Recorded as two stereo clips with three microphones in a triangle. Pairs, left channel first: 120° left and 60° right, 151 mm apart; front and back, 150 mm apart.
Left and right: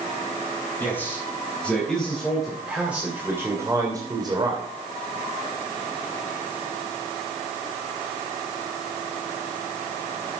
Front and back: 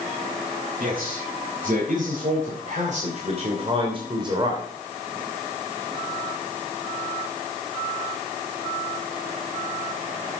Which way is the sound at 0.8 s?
165° right.